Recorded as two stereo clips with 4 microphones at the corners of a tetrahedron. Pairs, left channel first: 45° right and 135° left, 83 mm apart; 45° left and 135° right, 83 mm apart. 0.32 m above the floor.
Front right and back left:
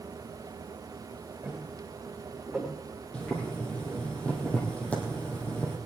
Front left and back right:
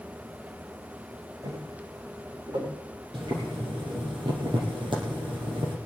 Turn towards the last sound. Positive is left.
turn(degrees=-120)